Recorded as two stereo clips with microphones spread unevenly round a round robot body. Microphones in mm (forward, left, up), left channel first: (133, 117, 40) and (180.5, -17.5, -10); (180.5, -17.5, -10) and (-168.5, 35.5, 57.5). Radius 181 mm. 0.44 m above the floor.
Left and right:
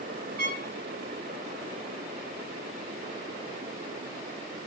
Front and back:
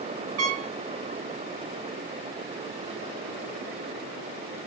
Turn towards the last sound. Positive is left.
turn(degrees=-140)